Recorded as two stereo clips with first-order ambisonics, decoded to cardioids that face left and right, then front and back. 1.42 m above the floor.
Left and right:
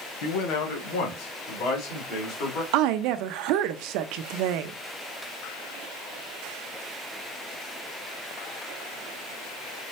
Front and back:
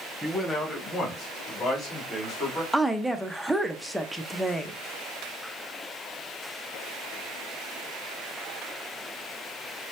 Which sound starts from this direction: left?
A man speaking, at 0.2 s.